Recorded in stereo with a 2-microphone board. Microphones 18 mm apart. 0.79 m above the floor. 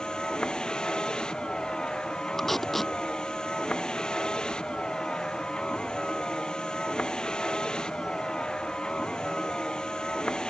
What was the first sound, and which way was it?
A vehicle, 55° left (ahead or behind).